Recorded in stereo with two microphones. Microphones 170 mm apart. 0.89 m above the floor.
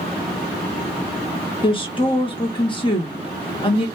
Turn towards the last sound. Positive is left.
turn(degrees=30)  # may be behind; listen again after turning